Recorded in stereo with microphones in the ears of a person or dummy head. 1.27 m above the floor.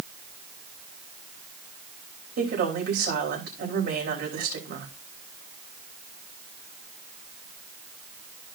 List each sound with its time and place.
2.4 s a woman speaking: 60° right (ahead or behind), 5.5 m